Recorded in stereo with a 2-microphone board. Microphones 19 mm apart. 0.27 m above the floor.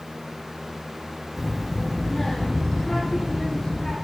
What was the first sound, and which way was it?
A child speaking, 5° right (ahead or behind).